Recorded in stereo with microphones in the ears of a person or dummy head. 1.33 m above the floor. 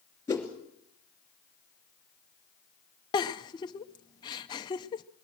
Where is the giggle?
20° left (ahead or behind), 0.6 m.